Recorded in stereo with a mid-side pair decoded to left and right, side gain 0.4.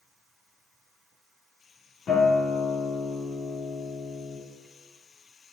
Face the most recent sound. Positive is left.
turn(degrees=65)